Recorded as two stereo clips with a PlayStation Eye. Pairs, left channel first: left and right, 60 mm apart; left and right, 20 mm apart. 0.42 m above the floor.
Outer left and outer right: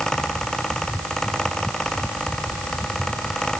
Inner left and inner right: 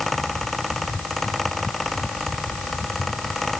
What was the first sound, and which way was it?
Only background noise.